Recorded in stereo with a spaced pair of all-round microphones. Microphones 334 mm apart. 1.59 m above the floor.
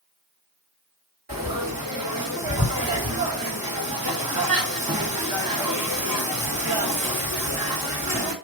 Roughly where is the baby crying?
No baby crying in this recording.